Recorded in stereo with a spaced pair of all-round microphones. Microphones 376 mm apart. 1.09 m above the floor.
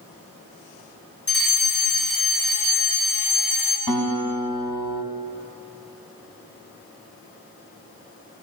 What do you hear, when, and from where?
1.3 s a fire alarm: 35° left (ahead or behind), 7 m
3.9 s a guitar: 70° left (ahead or behind), 4.5 m